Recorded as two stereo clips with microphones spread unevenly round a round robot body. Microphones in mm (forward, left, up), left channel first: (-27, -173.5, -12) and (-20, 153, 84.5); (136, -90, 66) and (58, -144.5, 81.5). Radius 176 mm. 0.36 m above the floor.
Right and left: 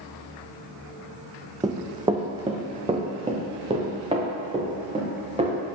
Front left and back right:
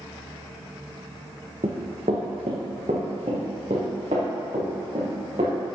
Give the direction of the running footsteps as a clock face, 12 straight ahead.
7 o'clock.